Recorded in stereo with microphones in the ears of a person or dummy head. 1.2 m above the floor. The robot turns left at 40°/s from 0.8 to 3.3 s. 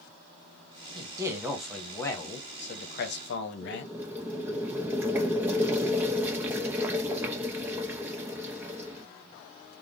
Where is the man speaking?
155° right, 0.9 m; by 3.9 s 110° left, 0.9 m.